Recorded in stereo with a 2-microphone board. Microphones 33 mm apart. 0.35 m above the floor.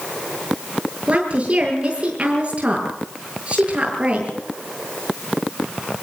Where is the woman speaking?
35° right (ahead or behind), 8 m.